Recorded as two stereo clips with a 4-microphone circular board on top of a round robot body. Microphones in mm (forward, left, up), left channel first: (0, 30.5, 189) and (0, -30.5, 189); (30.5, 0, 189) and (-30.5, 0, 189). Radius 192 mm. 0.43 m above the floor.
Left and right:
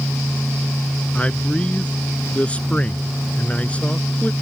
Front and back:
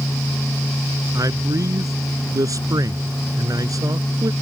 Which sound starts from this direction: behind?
A man speaking, at 1.1 s.